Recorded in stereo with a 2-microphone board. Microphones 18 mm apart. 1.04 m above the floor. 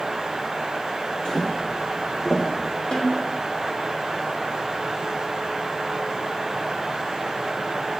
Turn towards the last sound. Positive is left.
turn(degrees=40)  # may be behind; listen again after turning